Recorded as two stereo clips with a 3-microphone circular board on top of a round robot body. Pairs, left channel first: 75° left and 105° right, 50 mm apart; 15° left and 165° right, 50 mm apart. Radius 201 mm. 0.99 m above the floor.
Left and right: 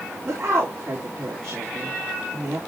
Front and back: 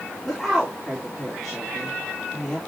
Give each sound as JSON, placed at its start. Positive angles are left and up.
{"t": 0.2, "sound": "a woman speaking", "azimuth_deg": -70, "distance_m": 4.0}